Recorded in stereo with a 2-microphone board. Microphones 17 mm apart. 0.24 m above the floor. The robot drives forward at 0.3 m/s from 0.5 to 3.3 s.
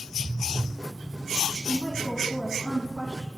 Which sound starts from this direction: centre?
A woman speaking, at 1.7 s.